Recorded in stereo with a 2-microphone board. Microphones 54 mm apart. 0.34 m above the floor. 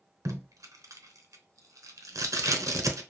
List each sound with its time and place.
0.2 s tape being pulled: 85° right, 0.8 m